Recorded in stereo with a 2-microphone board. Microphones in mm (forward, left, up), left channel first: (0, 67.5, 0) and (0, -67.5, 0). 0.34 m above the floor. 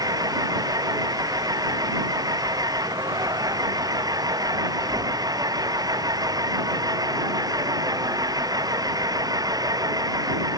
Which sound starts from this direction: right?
An engine running, at 0.0 s.